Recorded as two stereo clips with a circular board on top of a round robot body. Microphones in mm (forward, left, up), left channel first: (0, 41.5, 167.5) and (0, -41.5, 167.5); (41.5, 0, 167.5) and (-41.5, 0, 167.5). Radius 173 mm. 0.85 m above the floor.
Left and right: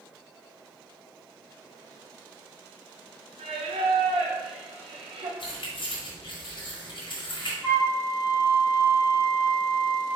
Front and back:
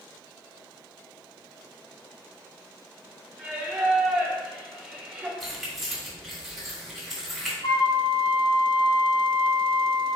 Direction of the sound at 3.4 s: 100° right.